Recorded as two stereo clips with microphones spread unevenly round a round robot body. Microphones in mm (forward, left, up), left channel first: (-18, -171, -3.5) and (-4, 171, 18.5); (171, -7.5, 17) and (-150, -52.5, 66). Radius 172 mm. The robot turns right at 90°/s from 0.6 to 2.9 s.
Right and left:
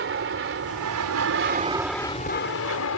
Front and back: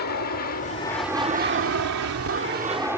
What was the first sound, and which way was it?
An aircraft, 45° left.